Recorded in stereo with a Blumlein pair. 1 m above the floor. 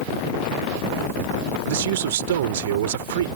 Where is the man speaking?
55° right.